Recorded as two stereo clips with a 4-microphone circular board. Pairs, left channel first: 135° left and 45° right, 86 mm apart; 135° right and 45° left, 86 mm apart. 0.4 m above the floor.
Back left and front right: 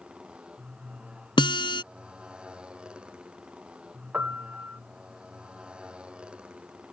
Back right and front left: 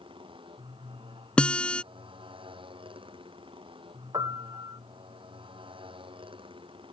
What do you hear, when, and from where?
0.0 s a motorcycle: 35° left
1.4 s a guitar: 150° left
4.1 s a piano: 20° left